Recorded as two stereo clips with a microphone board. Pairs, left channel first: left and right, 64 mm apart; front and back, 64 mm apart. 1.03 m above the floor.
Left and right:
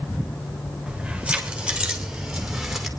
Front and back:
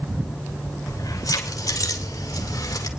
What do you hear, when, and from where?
0.9 s keys jangling: 15° right, 3 m; by 2.9 s 5° right, 2 m